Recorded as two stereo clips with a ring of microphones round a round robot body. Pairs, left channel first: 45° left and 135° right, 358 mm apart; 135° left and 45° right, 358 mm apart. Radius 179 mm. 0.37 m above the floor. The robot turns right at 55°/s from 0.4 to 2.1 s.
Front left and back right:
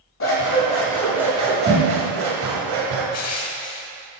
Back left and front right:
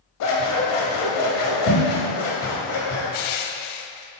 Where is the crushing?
95° left, 0.5 m.